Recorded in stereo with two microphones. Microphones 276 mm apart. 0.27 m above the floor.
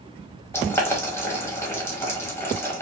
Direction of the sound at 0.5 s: 10° left (ahead or behind).